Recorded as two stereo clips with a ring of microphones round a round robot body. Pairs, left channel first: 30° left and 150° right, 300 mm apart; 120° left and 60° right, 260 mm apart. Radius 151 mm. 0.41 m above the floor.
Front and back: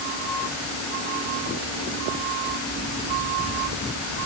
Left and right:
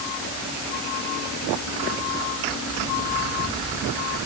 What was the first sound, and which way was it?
Only background noise.